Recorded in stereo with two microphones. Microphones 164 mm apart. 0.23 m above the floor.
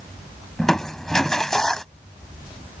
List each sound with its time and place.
0.6 s crushing: 5° left (ahead or behind)